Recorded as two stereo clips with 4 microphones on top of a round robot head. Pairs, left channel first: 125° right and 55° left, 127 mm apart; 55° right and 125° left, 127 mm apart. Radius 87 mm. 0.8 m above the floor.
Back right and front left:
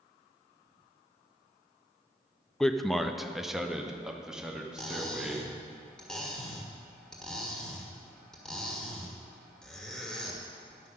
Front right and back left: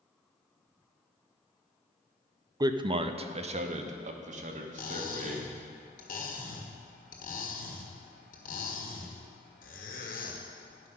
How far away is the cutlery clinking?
About 1.5 m.